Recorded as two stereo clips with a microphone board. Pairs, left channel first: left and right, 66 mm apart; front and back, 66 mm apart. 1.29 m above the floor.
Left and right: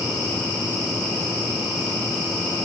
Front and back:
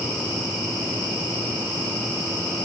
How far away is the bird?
No bird in this recording.